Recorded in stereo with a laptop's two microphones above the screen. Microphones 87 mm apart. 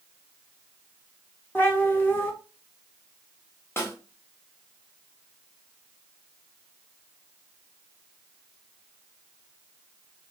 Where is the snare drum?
25° left (ahead or behind), 0.9 m.